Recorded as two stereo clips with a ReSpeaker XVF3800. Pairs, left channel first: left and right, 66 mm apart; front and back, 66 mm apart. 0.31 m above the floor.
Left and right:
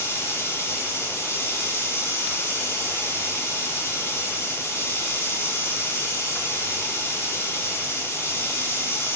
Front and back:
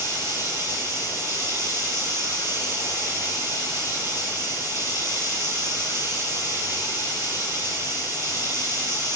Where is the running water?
130° left, 6 m.